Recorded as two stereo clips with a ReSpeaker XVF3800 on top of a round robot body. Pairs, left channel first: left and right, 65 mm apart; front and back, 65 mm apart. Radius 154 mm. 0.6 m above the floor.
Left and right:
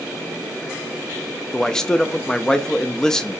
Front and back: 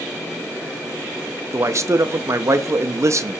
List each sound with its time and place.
1.5 s a man speaking: 170° left, 0.7 m